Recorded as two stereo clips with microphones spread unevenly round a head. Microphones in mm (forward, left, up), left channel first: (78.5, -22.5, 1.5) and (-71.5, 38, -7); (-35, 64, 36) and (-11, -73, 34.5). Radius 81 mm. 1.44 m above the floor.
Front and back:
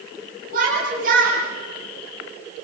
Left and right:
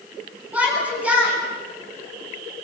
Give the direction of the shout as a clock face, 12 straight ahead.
5 o'clock.